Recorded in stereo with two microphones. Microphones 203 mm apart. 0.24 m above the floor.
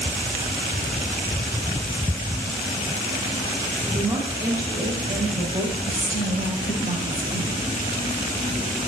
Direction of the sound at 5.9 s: 75° left (ahead or behind).